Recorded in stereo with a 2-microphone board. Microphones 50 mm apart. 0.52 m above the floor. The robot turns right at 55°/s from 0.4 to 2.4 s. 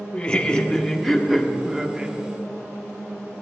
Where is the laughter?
20° left (ahead or behind), 0.8 m; by 2.1 s 20° right (ahead or behind), 0.8 m.